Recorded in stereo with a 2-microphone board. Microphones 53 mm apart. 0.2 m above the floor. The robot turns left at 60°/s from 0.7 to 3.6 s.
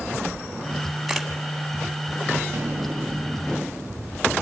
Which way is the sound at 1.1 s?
5° right (ahead or behind).